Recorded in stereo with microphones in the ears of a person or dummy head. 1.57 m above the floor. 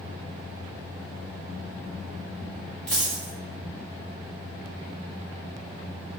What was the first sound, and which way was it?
A dropped coin, 5° left (ahead or behind).